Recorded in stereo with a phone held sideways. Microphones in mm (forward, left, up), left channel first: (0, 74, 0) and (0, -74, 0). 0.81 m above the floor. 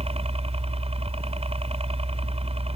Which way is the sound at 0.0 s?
45° right (ahead or behind).